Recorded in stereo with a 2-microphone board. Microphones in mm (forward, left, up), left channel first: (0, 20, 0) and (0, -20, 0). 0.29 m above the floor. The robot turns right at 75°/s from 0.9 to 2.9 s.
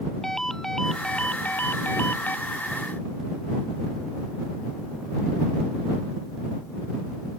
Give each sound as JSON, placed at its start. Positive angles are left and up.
{"t": 0.2, "sound": "a ringtone", "azimuth_deg": 10}